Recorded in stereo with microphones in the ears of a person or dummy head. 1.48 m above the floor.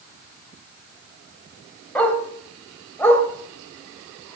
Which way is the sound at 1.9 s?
Centre (ahead or behind).